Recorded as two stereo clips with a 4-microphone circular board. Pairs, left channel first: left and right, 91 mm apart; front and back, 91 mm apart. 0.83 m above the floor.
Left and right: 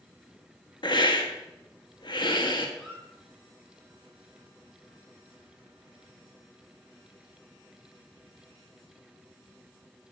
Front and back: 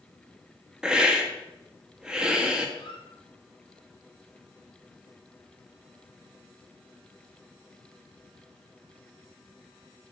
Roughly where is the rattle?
No rattle in this recording.